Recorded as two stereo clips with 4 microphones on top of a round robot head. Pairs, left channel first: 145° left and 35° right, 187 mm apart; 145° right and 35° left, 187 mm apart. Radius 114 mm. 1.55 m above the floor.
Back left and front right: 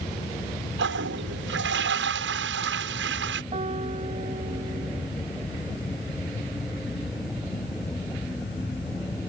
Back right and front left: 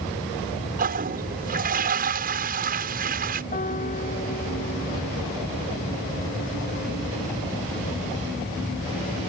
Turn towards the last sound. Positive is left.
turn(degrees=-95)